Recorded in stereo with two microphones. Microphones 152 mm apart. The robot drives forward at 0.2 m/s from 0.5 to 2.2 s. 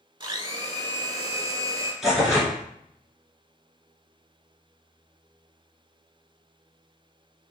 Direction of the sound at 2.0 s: 5° right (ahead or behind).